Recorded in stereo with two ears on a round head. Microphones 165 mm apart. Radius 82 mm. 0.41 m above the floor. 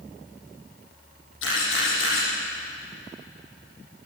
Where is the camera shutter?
85° left, 9 m.